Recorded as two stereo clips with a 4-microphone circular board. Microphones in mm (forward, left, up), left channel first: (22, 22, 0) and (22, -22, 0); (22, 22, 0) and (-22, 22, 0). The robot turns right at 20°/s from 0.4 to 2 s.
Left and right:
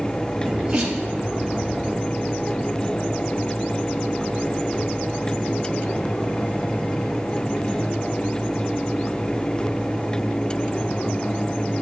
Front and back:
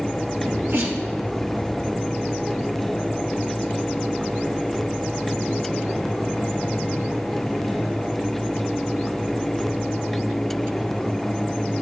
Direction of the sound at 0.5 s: 170° right.